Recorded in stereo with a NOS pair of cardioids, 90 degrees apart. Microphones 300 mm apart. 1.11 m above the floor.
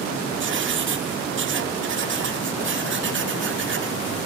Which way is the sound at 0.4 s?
40° right.